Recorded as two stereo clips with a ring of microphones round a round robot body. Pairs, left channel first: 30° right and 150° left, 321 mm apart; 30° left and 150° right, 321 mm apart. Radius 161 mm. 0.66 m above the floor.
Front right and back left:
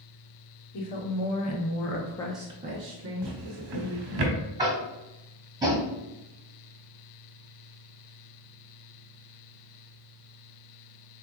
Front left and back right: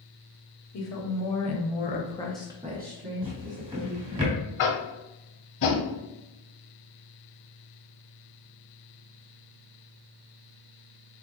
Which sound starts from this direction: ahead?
A woman speaking, at 0.7 s.